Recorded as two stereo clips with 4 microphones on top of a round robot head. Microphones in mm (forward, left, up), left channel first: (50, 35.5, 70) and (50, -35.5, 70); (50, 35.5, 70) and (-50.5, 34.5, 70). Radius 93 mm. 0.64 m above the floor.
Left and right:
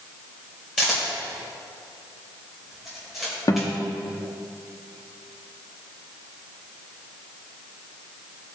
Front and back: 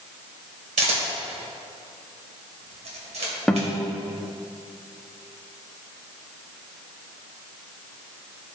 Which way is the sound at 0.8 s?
Straight behind.